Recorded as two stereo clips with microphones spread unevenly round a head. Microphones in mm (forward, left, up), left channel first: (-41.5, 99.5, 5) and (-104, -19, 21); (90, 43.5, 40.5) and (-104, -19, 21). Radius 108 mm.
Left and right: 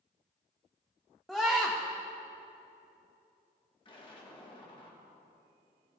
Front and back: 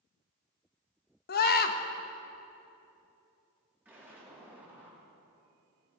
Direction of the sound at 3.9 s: 115° left.